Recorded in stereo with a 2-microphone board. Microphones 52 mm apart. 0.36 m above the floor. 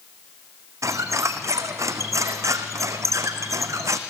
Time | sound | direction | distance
0.8 | a squeak | 75° right (ahead or behind) | 1.6 m